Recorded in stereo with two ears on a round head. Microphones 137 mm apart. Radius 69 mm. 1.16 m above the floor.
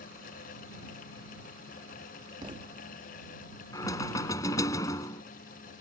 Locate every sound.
2.4 s a thud: 30° right (ahead or behind)
3.7 s knocking: 20° left (ahead or behind)